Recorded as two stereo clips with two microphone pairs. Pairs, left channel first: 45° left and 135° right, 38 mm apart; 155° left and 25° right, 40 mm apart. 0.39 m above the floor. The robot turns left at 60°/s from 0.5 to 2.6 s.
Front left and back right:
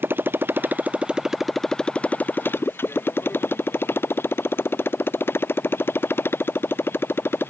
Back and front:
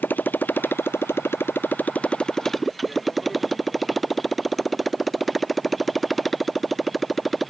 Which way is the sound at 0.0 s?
165° right.